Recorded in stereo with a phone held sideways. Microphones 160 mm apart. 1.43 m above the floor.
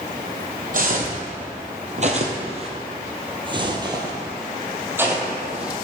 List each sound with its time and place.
0.7 s footsteps: 55° right (ahead or behind), 2.5 m; by 5.7 s 5° right (ahead or behind), 2.5 m